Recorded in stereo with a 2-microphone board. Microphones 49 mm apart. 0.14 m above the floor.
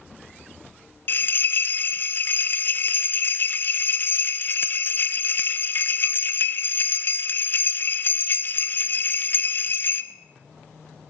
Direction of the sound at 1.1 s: 45° left (ahead or behind).